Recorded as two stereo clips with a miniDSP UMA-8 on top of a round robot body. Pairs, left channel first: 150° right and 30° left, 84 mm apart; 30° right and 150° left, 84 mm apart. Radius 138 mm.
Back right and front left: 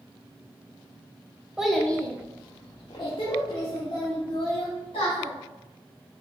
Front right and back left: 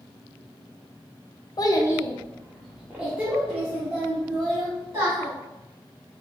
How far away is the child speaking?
About 0.8 m.